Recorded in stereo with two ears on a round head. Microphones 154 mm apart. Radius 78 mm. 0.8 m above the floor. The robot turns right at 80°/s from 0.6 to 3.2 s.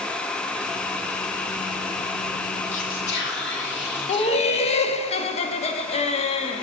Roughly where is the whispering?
Ahead left.